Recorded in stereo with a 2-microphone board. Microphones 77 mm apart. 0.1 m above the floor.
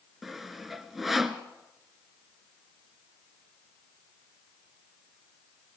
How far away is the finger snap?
I don't hear a finger snap.